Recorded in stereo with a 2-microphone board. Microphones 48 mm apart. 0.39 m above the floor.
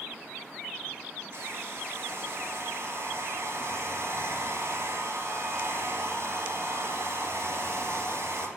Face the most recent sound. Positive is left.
turn(degrees=-65)  # may be behind; listen again after turning